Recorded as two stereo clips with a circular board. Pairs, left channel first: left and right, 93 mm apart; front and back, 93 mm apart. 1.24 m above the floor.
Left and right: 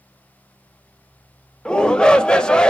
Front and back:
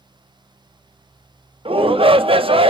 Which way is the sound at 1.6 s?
170° left.